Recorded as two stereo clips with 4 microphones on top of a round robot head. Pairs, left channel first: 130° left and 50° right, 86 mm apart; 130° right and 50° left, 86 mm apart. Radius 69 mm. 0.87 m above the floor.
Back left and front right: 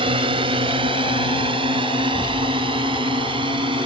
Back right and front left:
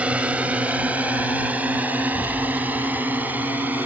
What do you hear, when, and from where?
0.0 s a drone: 25° right; by 3.9 s 20° right
2.0 s an explosion: 145° right